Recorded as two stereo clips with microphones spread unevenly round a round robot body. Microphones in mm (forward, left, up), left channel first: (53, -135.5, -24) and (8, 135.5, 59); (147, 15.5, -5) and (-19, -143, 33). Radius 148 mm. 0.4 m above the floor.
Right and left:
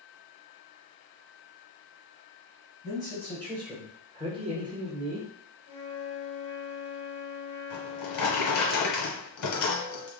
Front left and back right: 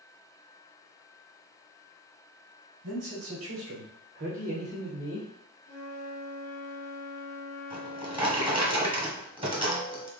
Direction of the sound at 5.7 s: 115° right.